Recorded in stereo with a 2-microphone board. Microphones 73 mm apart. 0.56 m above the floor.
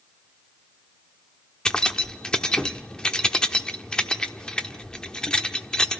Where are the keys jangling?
10° left (ahead or behind), 0.9 m.